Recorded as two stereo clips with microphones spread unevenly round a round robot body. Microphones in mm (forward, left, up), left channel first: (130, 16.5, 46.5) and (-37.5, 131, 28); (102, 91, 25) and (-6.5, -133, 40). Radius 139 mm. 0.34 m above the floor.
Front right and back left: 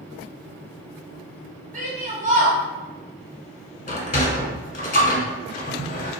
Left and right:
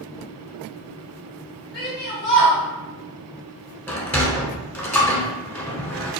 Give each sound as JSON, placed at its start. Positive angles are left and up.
{"t": 1.7, "sound": "a shout", "azimuth_deg": 105, "distance_m": 1.8}
{"t": 3.9, "sound": "a sliding door", "azimuth_deg": -10, "distance_m": 1.1}